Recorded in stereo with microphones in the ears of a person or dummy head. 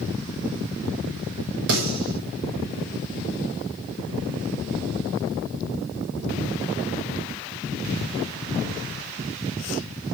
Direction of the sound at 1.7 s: 70° right (ahead or behind).